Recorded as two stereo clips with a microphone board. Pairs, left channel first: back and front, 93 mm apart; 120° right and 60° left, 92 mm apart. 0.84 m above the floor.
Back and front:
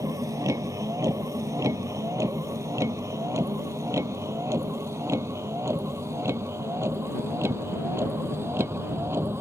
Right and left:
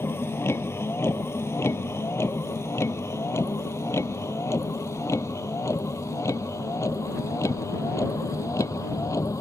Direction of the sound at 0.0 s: 55° right.